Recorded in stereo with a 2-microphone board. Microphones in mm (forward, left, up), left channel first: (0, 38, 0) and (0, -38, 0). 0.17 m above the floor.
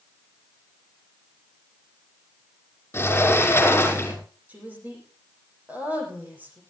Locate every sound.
2.9 s a sliding door: 30° left (ahead or behind), 5.5 m
4.5 s a woman speaking: 20° right (ahead or behind), 8 m